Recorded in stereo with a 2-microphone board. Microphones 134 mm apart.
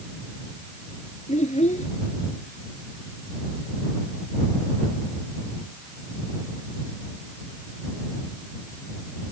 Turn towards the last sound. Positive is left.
turn(degrees=60)  # may be behind; listen again after turning